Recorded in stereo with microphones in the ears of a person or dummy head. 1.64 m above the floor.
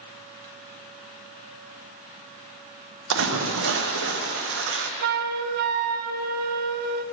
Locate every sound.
3.1 s a splash: 70° right (ahead or behind), 0.9 m
5.0 s a flute: 50° right (ahead or behind), 0.6 m